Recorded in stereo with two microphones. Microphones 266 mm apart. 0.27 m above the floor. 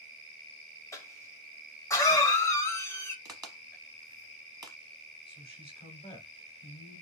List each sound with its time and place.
0.9 s a cough: 10° left (ahead or behind), 0.9 m
3.2 s a crack: 15° right (ahead or behind), 1.0 m
5.3 s a man speaking: 20° left (ahead or behind), 1.3 m